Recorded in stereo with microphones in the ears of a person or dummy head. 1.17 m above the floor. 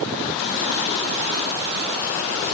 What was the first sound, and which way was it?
Only background noise.